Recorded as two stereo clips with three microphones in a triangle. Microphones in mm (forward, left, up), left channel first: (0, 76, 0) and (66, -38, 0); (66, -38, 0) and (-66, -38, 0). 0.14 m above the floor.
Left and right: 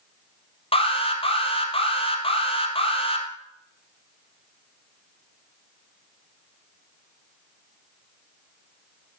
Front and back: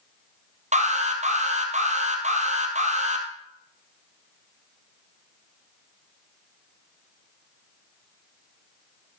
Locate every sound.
0.7 s an alarm: 160° left, 2.5 m